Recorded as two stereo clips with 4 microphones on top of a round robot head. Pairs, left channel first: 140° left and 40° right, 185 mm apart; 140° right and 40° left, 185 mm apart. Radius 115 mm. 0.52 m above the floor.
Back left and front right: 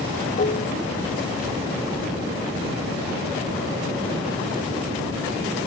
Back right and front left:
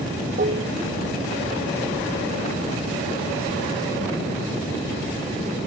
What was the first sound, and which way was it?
Dishes clattering, 90° left.